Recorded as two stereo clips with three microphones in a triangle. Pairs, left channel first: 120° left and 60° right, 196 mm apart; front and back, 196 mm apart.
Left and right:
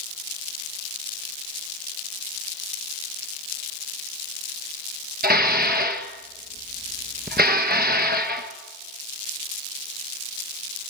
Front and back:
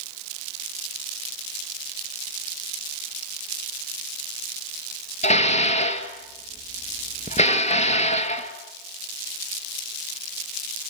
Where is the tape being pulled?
No tape being pulled in this recording.